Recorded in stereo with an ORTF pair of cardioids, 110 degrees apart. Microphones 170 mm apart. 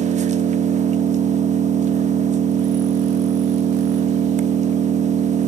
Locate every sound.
0.0 s an engine running: 45° right, 1.0 m